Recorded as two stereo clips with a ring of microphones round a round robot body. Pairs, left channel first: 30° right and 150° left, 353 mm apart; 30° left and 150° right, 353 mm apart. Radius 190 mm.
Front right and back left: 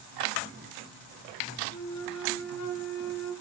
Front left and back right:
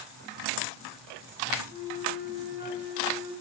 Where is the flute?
80° right, 1.3 m.